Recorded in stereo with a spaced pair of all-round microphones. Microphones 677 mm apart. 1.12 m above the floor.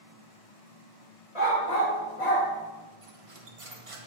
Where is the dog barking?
60° left (ahead or behind), 1.8 m; by 2.5 s 45° left (ahead or behind), 1.8 m.